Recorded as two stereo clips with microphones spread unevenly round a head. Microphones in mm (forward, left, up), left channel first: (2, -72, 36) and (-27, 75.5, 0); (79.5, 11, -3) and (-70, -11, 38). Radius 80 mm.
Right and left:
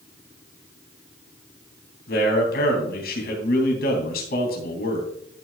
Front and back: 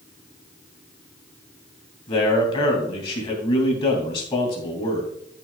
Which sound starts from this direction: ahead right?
A man speaking, at 2.1 s.